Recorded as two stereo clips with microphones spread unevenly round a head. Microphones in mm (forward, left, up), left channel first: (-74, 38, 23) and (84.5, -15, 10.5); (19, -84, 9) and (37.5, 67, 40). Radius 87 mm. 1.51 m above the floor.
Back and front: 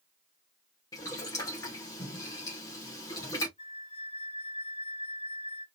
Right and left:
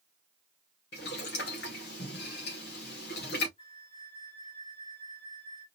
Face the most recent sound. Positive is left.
turn(degrees=-160)